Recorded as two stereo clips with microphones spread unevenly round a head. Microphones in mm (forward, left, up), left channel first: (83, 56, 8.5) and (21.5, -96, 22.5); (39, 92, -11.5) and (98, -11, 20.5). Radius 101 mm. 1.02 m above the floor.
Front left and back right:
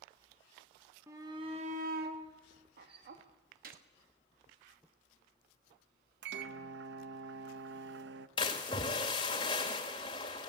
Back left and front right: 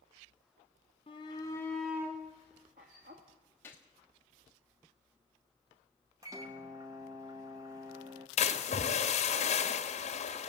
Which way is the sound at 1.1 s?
170° left.